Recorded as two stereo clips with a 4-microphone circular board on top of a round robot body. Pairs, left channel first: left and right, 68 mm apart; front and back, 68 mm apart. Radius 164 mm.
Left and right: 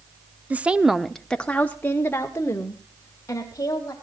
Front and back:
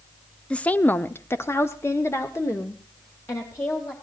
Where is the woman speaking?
55° right, 1.0 m; by 3.9 s 50° left, 3 m.